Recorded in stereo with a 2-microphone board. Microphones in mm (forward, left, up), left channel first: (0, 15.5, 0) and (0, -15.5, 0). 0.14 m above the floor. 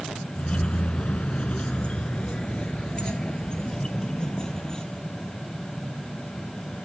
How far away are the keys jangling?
About 1.0 m.